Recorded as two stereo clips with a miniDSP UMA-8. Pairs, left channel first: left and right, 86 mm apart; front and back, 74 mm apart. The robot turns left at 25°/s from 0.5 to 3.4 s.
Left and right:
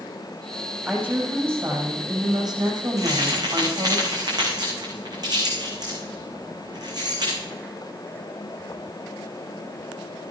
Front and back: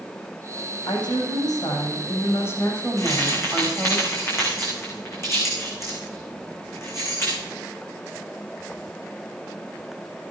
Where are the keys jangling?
40° right, 6 m; by 7.4 s 50° right, 6 m.